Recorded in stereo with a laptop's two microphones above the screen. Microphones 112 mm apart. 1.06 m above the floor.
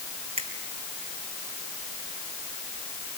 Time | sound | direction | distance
0.4 | a finger snap | 70° right (ahead or behind) | 4.5 m